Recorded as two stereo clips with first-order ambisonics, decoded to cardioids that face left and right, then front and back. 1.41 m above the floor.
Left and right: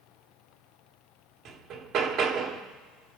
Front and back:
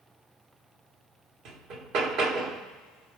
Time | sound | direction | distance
1.4 | hammering | 145° right | 1.5 m